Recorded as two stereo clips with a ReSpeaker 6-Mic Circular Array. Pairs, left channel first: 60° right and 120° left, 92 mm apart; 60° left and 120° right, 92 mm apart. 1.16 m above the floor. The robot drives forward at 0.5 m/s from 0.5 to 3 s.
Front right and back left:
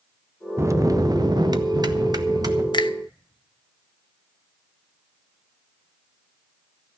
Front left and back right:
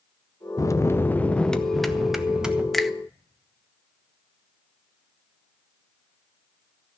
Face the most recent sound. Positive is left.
turn(degrees=-35)